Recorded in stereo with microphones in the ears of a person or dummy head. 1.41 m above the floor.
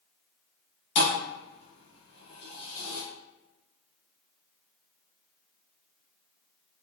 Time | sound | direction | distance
0.9 | a thud | 45° left (ahead or behind) | 1.9 m